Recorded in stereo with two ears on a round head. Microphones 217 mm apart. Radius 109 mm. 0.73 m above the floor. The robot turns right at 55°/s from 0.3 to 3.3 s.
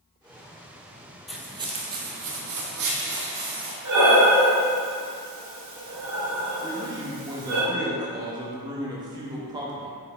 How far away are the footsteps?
About 1.0 m.